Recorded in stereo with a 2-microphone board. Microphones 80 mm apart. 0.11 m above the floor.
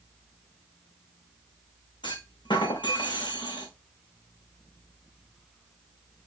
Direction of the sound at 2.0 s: 75° left (ahead or behind).